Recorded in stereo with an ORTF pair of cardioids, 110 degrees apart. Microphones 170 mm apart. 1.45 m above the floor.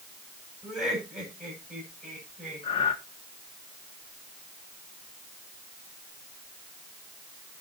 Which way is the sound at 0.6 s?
Straight ahead.